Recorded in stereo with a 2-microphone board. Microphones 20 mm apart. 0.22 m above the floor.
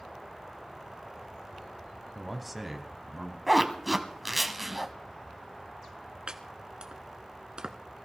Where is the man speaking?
Centre (ahead or behind), 1.2 m; by 3.4 s 15° right (ahead or behind), 1.7 m.